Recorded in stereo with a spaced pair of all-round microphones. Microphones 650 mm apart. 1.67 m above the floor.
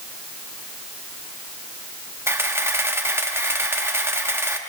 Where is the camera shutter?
5° right (ahead or behind), 1.2 m.